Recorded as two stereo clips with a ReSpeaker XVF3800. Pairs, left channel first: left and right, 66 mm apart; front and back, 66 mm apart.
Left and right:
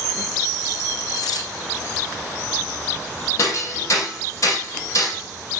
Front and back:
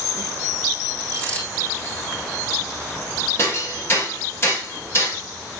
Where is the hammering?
50° left, 8 m.